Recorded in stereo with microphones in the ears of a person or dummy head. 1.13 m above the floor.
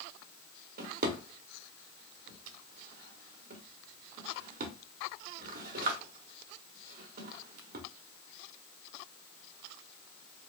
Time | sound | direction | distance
0.8 | a drawer | 45° right (ahead or behind) | 0.9 m